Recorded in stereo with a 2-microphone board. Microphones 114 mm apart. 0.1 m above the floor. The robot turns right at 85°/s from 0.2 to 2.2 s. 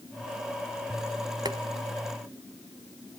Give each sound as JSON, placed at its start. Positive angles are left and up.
{"t": 1.4, "sound": "boiling", "side_deg": -35, "distance_m": 1.2}